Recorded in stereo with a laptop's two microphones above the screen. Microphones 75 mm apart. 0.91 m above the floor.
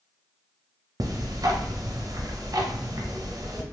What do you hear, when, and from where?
1.0 s ticking: 50° right (ahead or behind), 0.6 m